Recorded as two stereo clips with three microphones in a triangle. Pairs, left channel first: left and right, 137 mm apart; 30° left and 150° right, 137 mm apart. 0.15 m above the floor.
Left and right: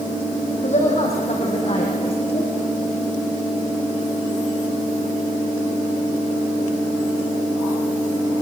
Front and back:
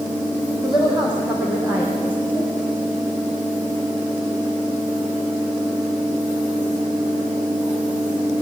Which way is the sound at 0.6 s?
120° left.